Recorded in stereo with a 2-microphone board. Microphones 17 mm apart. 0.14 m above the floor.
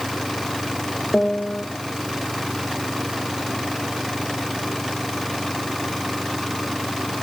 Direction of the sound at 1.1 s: 85° left.